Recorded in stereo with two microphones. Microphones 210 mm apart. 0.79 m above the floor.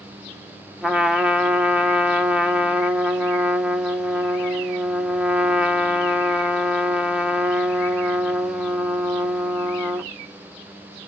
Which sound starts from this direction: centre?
A trumpet, at 0.8 s.